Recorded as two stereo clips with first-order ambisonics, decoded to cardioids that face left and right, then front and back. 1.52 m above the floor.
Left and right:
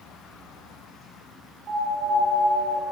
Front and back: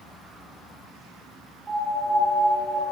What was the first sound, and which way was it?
A piano, 120° right.